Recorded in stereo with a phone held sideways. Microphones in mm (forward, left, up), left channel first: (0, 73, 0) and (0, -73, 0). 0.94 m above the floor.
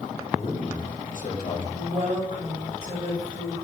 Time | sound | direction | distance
0.3 | a man speaking | 60° left (ahead or behind) | 2 m
1.7 | a woman speaking | 40° right (ahead or behind) | 3 m